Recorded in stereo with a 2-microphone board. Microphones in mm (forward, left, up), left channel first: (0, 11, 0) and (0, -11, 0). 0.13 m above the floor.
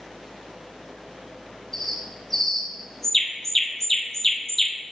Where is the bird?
10° left (ahead or behind), 1.7 m.